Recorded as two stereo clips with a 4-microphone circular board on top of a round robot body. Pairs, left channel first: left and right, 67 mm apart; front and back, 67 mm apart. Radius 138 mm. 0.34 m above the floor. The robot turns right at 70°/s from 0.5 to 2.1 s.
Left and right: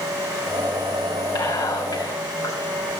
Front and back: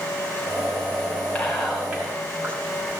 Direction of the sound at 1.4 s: 70° left.